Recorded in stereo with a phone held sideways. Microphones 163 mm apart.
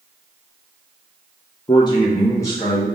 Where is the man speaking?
30° left (ahead or behind), 0.5 m; by 2.9 s 15° left (ahead or behind), 1.1 m.